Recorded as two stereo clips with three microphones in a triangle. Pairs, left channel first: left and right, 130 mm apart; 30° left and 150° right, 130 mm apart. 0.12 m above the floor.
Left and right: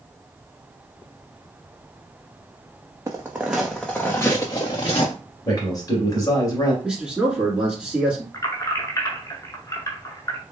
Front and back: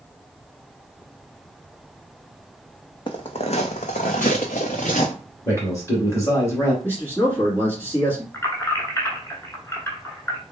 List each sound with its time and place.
3.1 s footsteps: 25° right, 0.7 m; by 5.1 s 50° left, 1.0 m
5.5 s a man speaking: 75° left, 2.0 m
6.8 s a man speaking: 20° right, 1.2 m
8.3 s keys jangling: 75° left, 1.0 m